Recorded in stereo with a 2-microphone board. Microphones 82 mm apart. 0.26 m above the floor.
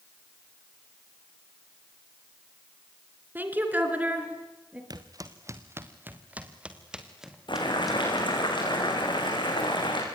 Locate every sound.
3.4 s a woman speaking: 25° right (ahead or behind), 3.5 m; by 4.8 s 15° right (ahead or behind), 5 m
4.9 s footsteps: 55° right (ahead or behind), 2.0 m; by 8.3 s centre (ahead or behind), 4.5 m
7.5 s boiling: 75° left (ahead or behind), 6.5 m